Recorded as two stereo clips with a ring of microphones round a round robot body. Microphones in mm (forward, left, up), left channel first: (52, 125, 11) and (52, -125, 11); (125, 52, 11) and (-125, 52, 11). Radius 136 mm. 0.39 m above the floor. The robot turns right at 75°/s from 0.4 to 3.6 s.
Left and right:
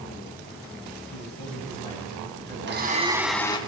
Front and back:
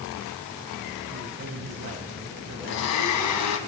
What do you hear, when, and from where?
1.1 s a man speaking: 105° left, 7 m; by 3.7 s 65° right, 7 m
2.7 s a blender: 50° right, 2.5 m; by 3.6 s 20° left, 2.5 m